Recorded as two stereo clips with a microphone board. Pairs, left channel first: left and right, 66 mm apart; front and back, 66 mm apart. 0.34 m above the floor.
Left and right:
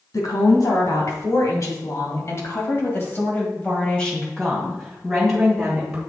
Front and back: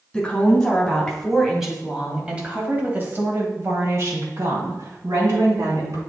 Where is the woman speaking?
75° left, 3 m; by 6.0 s 170° right, 3.5 m.